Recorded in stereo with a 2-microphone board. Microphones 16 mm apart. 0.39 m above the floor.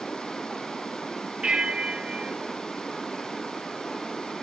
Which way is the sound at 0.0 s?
70° left (ahead or behind).